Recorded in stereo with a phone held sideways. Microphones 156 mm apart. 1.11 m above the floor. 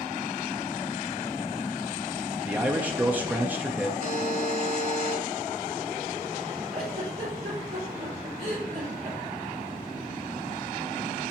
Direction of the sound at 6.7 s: 75° right (ahead or behind).